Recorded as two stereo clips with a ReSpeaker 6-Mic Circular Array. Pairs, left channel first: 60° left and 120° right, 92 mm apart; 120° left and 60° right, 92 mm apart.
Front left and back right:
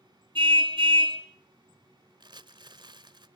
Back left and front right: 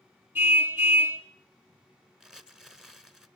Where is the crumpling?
145° right, 1.2 m.